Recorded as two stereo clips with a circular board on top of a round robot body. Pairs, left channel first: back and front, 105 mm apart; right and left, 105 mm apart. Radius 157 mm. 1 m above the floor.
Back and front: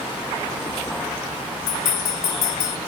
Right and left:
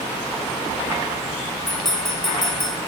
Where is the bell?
175° right, 0.5 m.